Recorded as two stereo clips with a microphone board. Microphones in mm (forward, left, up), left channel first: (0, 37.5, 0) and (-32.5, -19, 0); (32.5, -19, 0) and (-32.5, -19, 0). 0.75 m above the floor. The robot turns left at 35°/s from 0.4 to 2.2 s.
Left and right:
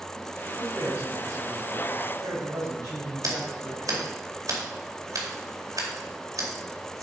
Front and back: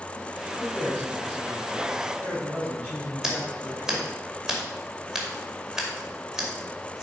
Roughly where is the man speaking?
Ahead right.